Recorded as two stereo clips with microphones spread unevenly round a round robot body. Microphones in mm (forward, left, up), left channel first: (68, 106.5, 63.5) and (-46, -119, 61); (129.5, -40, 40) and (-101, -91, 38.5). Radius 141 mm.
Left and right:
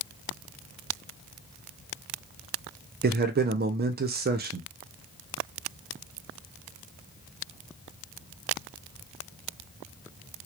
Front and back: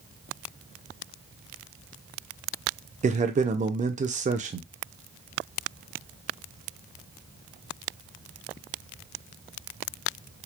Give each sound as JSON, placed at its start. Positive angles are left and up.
{"t": 3.0, "sound": "a man speaking", "azimuth_deg": -130, "distance_m": 0.5}